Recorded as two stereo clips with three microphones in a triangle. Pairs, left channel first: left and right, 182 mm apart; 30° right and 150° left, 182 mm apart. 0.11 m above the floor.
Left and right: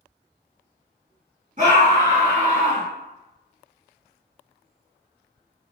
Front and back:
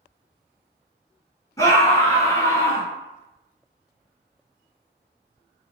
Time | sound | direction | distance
1.6 | a scream | 95° right | 2 m